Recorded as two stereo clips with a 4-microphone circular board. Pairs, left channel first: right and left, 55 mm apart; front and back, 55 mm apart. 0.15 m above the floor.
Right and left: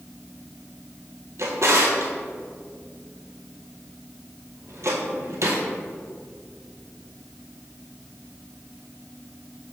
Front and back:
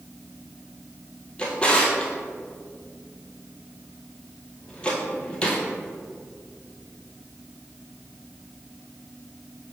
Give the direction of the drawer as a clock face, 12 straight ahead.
10 o'clock.